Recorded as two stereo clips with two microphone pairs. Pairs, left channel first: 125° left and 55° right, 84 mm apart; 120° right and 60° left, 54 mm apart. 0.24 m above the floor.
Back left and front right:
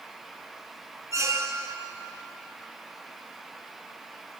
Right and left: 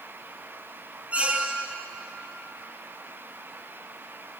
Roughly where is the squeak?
Ahead.